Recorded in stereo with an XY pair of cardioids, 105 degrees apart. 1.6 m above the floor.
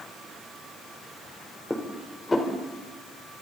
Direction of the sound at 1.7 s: 15° left.